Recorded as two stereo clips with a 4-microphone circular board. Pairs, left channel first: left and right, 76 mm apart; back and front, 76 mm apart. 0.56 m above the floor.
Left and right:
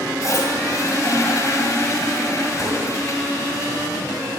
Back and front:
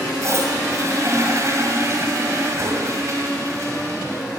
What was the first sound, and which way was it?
A toilet flushing, 45° left.